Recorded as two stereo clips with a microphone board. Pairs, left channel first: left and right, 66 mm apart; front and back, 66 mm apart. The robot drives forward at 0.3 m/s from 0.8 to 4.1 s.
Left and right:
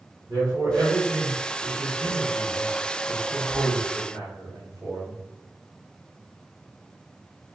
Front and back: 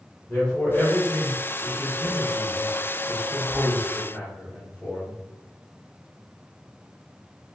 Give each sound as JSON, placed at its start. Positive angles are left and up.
{"t": 0.3, "sound": "a man speaking", "azimuth_deg": -75, "distance_m": 1.8}